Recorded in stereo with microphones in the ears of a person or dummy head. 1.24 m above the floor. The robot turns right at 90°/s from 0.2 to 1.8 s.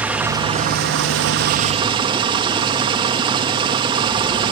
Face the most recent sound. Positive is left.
turn(degrees=-30)